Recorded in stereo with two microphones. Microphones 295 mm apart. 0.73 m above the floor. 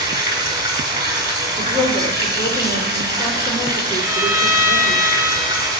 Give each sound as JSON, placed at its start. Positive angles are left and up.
{"t": 0.0, "sound": "running water", "side_deg": -15, "distance_m": 2.0}
{"t": 1.6, "sound": "a woman speaking", "side_deg": 10, "distance_m": 2.5}
{"t": 4.0, "sound": "a violin", "side_deg": -10, "distance_m": 2.5}